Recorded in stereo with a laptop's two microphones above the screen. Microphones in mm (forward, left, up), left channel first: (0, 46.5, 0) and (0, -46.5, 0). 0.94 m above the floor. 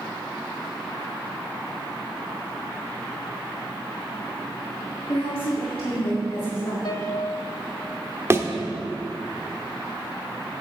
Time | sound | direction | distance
5.1 | a woman speaking | 80° left | 2 m
6.8 | a piano | 50° left (ahead or behind) | 1.1 m
8.3 | a thud | 30° right (ahead or behind) | 0.9 m